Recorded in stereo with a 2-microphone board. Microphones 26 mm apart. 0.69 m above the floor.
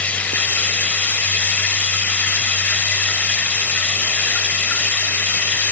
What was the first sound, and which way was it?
Running water, 75° left (ahead or behind).